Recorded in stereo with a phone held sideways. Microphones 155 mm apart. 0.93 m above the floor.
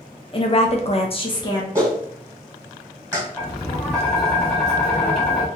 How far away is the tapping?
About 1.6 m.